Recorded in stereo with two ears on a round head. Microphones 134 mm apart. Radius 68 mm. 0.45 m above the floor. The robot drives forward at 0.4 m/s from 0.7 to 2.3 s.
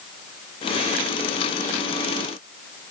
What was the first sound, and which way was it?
Only background noise.